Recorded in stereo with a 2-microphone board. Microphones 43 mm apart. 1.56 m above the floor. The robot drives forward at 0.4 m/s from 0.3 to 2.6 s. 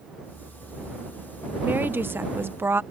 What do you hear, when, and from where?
1.6 s a woman speaking: 50° right (ahead or behind); by 2.8 s 60° right (ahead or behind)